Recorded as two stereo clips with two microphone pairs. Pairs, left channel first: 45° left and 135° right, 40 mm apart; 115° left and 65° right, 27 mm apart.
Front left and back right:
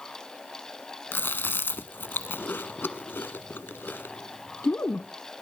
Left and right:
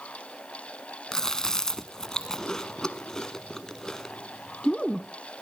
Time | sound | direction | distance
1.1 | chewing | 45° left | 0.6 m